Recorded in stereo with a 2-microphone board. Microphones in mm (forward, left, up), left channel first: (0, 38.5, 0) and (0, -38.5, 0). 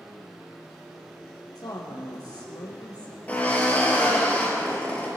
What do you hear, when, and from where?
1.6 s a woman speaking: 75° left (ahead or behind), 4 m
3.3 s a drill: 20° left (ahead or behind), 4 m